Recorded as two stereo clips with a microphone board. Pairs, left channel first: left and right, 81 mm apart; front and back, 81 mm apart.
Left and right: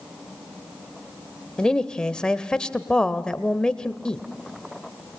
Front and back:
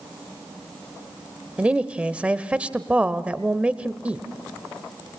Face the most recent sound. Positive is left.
turn(degrees=145)